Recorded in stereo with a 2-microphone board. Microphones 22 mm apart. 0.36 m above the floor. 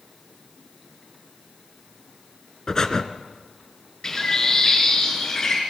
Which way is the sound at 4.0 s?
30° left (ahead or behind).